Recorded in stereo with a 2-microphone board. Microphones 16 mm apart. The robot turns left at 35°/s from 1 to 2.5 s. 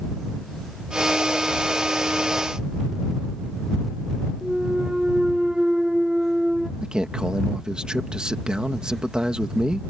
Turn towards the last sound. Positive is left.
turn(degrees=-75)  # may be behind; listen again after turning